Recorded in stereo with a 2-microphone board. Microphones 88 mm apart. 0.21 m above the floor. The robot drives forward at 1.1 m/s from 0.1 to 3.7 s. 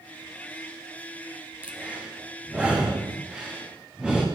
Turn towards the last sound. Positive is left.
turn(degrees=-10)  # may be behind; listen again after turning